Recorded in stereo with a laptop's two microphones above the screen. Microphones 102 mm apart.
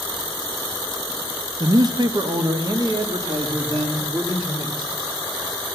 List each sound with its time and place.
1.6 s a man speaking: 40° right (ahead or behind), 0.7 m; by 4.9 s 45° right (ahead or behind), 2.5 m